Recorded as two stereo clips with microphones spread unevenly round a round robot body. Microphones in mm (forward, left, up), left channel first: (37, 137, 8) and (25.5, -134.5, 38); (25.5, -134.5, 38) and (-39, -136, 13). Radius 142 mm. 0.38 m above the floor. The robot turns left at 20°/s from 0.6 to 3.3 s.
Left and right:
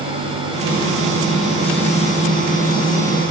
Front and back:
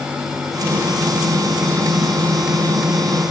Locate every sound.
Only background noise.